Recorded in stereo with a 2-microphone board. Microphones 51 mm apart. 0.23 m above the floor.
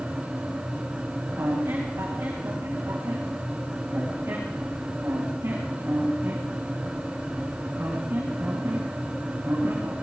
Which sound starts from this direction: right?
A squeak, at 1.4 s.